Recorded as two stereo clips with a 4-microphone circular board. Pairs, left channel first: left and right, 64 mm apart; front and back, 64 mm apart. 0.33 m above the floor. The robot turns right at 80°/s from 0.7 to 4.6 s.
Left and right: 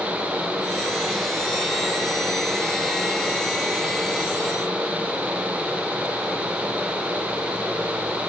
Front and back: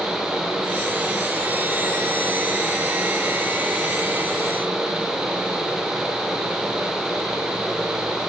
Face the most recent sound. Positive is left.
No sound to turn to.